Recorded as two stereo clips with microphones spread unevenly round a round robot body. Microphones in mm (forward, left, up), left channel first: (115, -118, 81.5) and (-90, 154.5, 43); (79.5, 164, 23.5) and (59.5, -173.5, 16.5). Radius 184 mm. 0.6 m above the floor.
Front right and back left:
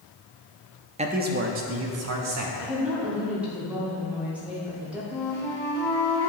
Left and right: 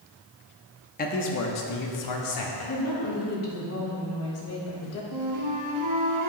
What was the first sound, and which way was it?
A man speaking, 110° left.